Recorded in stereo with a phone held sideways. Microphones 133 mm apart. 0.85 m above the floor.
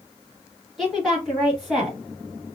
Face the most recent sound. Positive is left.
turn(degrees=0)  # may be behind; listen again after turning